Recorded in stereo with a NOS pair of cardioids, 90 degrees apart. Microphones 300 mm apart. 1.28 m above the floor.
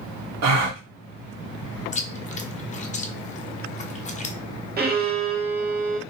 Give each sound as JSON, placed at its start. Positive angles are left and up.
{"t": 0.4, "sound": "a gasp", "azimuth_deg": -60, "distance_m": 0.9}
{"t": 1.9, "sound": "chewing", "azimuth_deg": 25, "distance_m": 0.6}
{"t": 4.8, "sound": "a violin", "azimuth_deg": -35, "distance_m": 0.8}